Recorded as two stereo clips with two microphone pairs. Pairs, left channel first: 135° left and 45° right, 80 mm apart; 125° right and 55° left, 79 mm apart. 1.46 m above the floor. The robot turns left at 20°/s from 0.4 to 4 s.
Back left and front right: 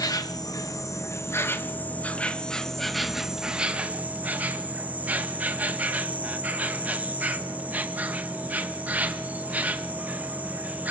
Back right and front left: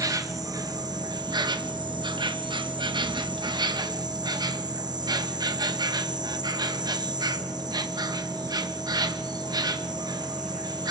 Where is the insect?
95° left, 1.5 m; by 10.9 s 25° left, 1.5 m.